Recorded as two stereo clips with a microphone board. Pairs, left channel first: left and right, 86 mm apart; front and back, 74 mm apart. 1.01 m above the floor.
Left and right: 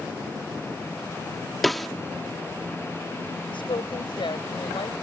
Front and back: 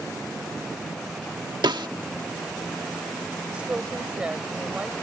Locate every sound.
1.6 s a snare drum: straight behind
3.5 s a woman speaking: 105° left